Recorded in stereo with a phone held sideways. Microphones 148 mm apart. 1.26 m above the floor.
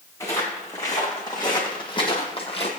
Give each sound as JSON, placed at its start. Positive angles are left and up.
{"t": 0.2, "sound": "footsteps", "side_deg": 25, "distance_m": 4.5}